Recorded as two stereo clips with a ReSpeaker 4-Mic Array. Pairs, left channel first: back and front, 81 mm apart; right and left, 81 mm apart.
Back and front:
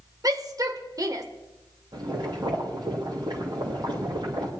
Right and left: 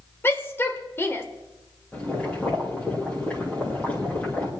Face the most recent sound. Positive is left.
turn(degrees=-20)